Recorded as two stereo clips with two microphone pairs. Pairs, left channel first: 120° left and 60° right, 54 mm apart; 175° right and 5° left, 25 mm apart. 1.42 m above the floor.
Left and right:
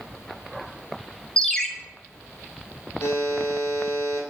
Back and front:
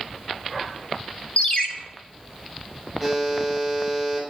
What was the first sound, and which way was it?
A ringtone, 170° right.